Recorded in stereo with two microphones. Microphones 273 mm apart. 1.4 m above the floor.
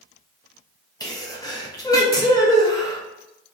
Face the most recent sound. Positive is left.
turn(degrees=15)  # may be behind; listen again after turning